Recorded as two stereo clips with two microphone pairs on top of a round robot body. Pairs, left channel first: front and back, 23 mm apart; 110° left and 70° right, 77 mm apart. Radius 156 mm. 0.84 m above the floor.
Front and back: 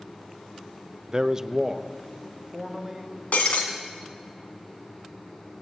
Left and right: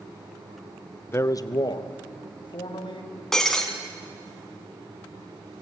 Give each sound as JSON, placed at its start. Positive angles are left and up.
{"t": 1.1, "sound": "a man speaking", "azimuth_deg": 145, "distance_m": 1.0}
{"t": 3.3, "sound": "breaking glass", "azimuth_deg": 30, "distance_m": 1.6}